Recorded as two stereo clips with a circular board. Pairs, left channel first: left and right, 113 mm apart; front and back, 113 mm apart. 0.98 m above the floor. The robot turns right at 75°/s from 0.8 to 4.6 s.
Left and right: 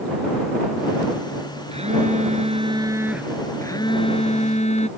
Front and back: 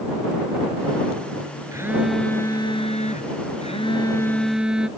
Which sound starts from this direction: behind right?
A phone buzzing, at 1.7 s.